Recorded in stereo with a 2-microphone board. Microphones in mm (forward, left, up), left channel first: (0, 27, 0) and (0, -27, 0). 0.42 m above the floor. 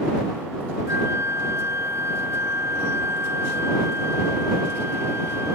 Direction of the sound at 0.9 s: 65° right (ahead or behind).